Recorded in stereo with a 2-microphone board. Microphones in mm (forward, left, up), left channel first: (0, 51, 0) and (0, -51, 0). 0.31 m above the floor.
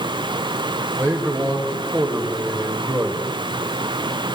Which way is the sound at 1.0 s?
25° right (ahead or behind).